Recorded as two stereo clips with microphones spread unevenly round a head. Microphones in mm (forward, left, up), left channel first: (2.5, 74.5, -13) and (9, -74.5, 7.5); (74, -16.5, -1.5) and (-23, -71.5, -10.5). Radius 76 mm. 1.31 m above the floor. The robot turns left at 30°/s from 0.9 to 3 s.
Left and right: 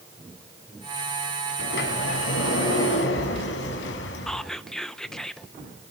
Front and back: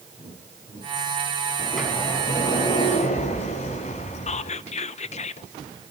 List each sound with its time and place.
1.6 s a sliding door: 120° left, 5 m; by 4.5 s 80° left, 5 m
4.3 s whispering: 5° left, 0.7 m